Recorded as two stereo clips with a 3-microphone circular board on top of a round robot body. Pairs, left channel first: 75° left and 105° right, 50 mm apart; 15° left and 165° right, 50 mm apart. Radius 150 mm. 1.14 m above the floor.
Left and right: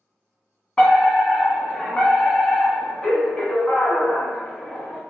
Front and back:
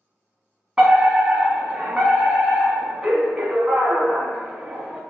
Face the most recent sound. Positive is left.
turn(degrees=130)